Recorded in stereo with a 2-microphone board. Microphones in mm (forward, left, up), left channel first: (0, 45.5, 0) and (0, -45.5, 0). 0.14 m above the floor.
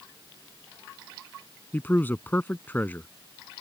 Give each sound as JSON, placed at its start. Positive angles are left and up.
{"t": 1.7, "sound": "a man speaking", "side_deg": 20}